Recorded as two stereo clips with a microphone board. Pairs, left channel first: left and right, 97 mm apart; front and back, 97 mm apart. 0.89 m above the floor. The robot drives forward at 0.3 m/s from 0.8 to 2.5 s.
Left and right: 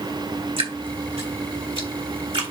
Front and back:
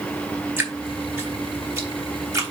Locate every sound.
0.6 s dripping: 110° right, 2.5 m; by 2.5 s 115° right, 3 m